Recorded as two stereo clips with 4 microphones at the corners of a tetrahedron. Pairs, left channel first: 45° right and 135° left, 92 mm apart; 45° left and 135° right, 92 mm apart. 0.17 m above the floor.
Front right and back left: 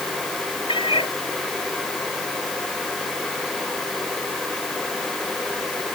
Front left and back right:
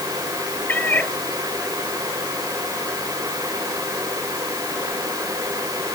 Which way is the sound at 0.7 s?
25° right.